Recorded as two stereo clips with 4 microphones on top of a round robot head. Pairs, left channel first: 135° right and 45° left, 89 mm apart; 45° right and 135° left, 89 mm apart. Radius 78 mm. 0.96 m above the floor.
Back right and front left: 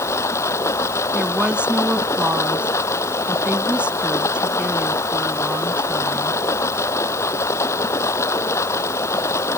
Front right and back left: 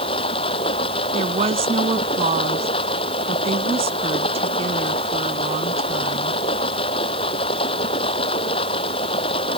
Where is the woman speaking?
125° left.